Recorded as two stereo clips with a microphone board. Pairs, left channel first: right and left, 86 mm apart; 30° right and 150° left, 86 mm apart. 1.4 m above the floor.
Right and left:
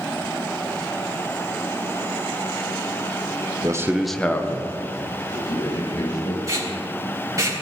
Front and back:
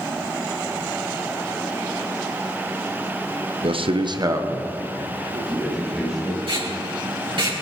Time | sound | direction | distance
3.6 | a man speaking | 140° left | 0.8 m
6.5 | tape being pulled | 140° left | 4 m